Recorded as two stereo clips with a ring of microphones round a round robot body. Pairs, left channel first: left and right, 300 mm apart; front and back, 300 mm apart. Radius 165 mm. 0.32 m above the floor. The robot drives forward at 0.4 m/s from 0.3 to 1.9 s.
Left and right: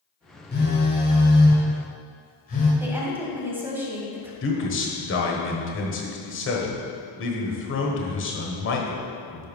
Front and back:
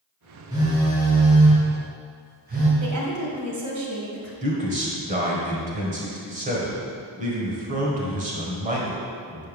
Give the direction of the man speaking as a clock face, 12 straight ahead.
8 o'clock.